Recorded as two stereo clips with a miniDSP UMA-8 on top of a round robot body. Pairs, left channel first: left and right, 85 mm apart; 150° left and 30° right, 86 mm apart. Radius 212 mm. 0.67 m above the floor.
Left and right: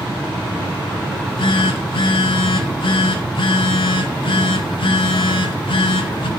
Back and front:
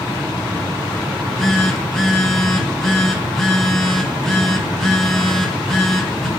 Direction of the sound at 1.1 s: 65° left.